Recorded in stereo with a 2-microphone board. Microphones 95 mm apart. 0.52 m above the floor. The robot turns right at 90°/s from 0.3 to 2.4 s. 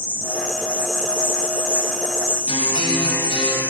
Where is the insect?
25° right, 1.3 m; by 3.7 s 165° left, 1.3 m.